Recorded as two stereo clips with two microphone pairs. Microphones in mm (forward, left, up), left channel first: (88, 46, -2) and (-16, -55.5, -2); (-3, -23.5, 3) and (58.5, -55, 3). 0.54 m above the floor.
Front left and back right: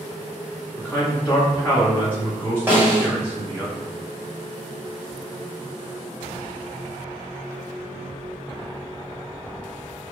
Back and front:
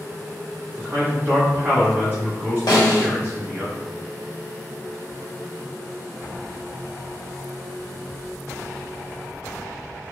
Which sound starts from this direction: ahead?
A man speaking, at 0.8 s.